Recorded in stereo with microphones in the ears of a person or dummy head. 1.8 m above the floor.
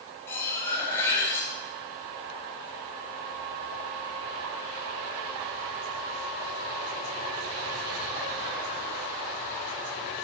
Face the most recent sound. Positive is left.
turn(degrees=15)  # may be behind; listen again after turning